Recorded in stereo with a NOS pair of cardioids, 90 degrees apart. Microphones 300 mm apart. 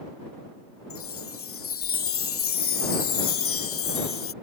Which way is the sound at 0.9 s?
50° left.